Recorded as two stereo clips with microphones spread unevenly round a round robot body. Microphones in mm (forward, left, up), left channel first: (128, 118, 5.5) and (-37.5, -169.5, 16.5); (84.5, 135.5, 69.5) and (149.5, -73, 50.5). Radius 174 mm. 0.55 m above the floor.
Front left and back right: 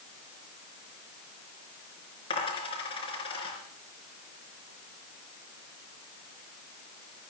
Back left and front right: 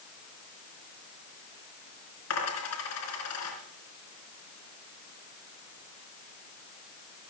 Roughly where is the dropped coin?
Behind left.